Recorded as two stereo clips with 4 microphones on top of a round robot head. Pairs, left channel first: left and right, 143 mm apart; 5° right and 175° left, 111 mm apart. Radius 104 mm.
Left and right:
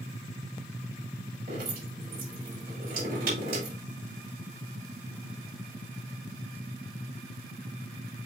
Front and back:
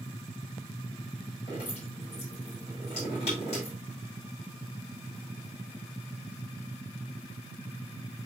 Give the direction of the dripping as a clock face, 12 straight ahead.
2 o'clock.